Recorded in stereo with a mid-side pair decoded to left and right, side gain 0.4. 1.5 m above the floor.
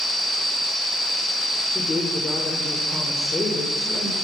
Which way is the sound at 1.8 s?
40° left.